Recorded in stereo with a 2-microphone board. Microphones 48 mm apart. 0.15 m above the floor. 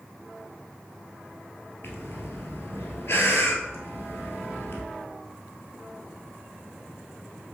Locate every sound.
1.8 s breathing: 60° left (ahead or behind), 1.1 m